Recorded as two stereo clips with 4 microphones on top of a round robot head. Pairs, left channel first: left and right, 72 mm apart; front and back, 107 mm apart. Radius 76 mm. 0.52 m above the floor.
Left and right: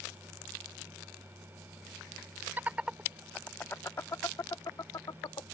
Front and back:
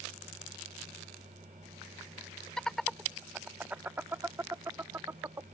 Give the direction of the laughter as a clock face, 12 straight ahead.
2 o'clock.